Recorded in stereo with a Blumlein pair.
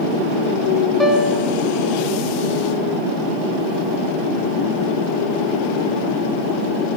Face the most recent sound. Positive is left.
turn(degrees=-5)